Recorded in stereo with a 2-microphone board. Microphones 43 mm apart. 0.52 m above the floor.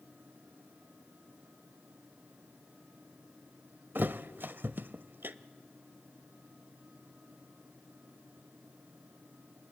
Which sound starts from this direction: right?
A thud, at 4.0 s.